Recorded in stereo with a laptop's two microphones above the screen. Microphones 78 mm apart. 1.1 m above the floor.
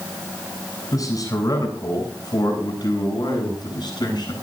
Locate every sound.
0.9 s a man speaking: 50° left (ahead or behind), 8 m; by 4.3 s 65° left (ahead or behind), 8.5 m